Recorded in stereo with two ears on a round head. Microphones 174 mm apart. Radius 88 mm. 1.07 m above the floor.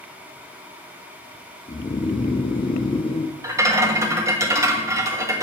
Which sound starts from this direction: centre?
A rattle, at 3.4 s.